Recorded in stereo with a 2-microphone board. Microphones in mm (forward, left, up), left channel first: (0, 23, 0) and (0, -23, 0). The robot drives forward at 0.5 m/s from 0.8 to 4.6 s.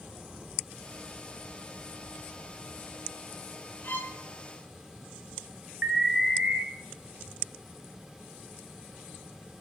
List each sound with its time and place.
3.8 s a violin: 45° left (ahead or behind), 1.1 m; by 4.2 s 40° left (ahead or behind), 1.2 m
5.8 s an alarm: 15° right (ahead or behind), 0.5 m